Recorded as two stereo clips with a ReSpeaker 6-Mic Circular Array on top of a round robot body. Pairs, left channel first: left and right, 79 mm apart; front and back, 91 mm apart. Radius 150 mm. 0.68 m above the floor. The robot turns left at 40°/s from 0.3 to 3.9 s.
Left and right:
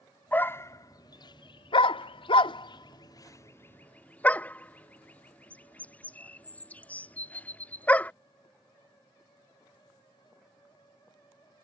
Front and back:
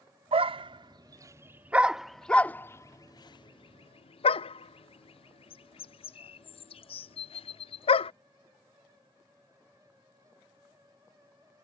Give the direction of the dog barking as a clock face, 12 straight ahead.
7 o'clock.